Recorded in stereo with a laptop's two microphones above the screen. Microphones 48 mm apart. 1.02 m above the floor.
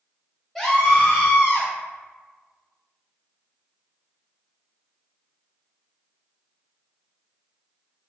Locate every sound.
0.6 s a scream: centre (ahead or behind), 1.5 m; by 1.7 s 60° left (ahead or behind), 1.3 m